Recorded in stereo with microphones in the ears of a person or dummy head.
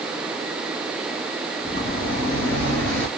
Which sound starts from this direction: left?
Footsteps, at 1.6 s.